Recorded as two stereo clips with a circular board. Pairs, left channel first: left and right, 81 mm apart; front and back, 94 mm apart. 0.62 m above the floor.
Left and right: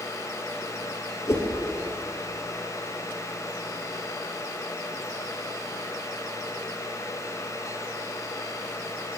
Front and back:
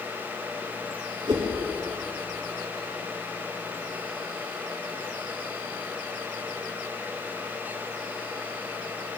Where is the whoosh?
145° left, 2.5 m.